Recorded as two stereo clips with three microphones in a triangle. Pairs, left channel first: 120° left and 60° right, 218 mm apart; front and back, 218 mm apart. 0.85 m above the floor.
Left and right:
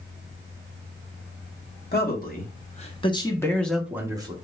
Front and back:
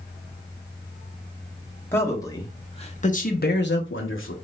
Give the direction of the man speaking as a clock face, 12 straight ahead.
9 o'clock.